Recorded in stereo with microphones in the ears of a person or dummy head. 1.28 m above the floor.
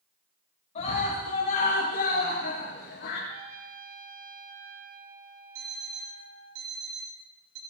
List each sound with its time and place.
0.8 s a scream: 30° left (ahead or behind), 6.5 m; by 3.2 s 55° left (ahead or behind), 7.5 m
3.3 s a trumpet: 45° right (ahead or behind), 1.4 m
5.5 s an alarm clock: 80° right, 2.5 m